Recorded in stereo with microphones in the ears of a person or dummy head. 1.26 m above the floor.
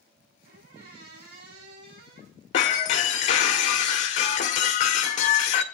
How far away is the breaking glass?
About 1.4 m.